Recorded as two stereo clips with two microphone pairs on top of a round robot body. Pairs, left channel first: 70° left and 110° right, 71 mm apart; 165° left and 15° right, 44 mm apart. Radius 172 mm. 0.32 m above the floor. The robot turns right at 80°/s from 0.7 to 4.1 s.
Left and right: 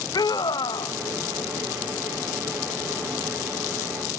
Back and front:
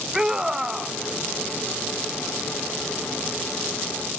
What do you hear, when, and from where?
0.1 s a scream: 55° left; by 0.9 s 75° left